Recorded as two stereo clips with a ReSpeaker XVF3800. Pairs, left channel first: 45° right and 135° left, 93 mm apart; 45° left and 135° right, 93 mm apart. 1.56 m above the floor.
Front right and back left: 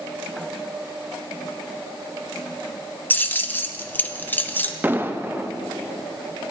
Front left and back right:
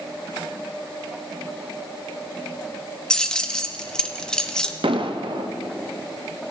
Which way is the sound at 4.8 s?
155° right.